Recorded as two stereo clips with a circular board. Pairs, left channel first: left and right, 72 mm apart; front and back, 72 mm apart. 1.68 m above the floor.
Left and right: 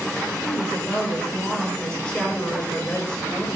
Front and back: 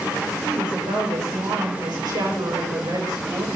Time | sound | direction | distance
0.4 | a woman speaking | 175° left | 5.5 m